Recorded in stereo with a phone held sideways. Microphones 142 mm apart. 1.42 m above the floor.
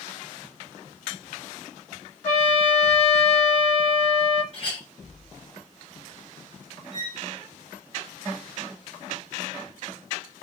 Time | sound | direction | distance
2.2 | a trumpet | 45° left (ahead or behind) | 1.0 m
4.5 | a clink | 45° left (ahead or behind) | 0.9 m
6.9 | a violin | 40° left (ahead or behind) | 1.5 m